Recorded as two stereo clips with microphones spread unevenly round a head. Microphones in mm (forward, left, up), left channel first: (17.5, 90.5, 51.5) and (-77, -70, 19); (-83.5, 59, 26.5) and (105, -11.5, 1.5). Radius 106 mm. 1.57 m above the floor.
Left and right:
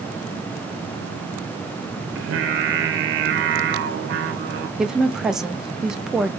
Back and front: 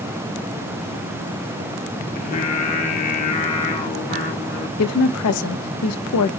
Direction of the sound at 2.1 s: 145° right.